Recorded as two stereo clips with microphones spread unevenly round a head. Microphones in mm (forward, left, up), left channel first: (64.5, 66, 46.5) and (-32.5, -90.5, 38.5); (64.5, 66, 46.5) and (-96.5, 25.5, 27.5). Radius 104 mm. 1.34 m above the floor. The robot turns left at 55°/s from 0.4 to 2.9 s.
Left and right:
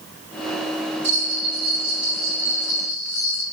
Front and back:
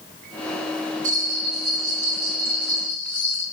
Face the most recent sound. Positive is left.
turn(degrees=95)